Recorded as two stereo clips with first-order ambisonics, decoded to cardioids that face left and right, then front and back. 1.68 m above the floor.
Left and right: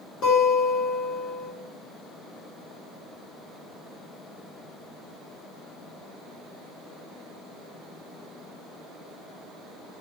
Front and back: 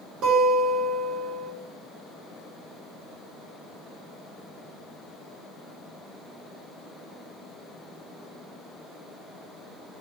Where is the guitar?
135° left, 1.1 m.